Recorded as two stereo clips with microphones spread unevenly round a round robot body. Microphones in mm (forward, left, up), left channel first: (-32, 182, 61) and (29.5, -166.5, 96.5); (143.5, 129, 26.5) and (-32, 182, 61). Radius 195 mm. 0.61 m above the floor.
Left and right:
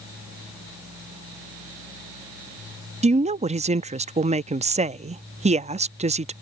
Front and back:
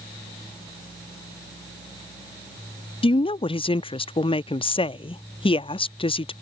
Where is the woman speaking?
10° right.